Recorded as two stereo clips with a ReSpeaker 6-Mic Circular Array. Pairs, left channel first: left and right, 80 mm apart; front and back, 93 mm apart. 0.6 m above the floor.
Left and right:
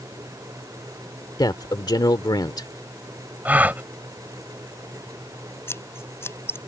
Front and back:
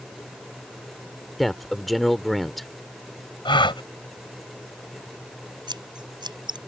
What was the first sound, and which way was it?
A man speaking, 90° left.